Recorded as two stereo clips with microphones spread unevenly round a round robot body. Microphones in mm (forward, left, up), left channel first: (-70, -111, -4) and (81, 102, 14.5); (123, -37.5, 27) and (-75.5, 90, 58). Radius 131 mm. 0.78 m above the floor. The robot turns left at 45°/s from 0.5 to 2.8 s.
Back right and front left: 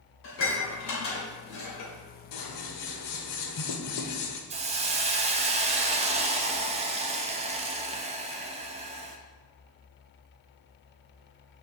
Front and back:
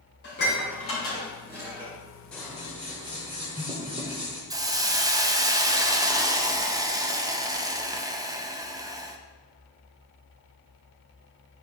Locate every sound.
0.2 s dishes clattering: 85° right, 2 m; by 1.9 s 145° right, 2 m
2.3 s scissors: 120° right, 0.9 m; by 4.4 s 145° right, 0.9 m
4.5 s a hiss: 75° left, 0.6 m